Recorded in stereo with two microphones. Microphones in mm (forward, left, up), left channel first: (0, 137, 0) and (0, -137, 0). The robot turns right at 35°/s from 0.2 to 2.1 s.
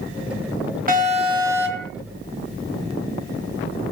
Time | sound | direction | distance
0.9 | an alarm | 35° right | 2.5 m